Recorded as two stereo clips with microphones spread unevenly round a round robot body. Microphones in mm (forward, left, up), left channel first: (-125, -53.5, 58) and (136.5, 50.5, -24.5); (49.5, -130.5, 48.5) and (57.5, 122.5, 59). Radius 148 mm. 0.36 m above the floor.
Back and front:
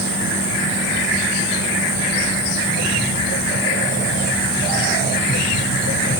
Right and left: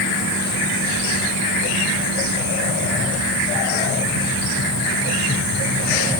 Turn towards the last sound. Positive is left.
No sound to turn to.